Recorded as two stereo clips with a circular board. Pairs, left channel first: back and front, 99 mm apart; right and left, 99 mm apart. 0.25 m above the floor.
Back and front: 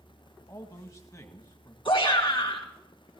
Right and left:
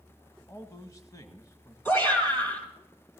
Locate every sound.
0.5 s a man speaking: 135° right, 1.3 m
1.9 s a shout: 155° right, 3 m